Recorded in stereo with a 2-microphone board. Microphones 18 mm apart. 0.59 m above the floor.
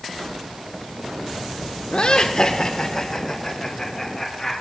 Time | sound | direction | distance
1.9 | laughter | 50° left (ahead or behind) | 1.2 m